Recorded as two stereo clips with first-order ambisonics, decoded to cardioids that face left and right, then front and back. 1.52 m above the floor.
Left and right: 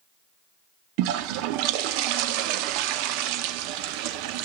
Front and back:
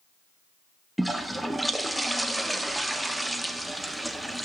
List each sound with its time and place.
1.0 s a toilet flushing: 95° right, 1.0 m